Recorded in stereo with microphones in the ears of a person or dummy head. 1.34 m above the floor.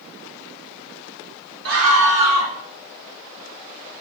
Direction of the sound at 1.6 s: 75° right (ahead or behind).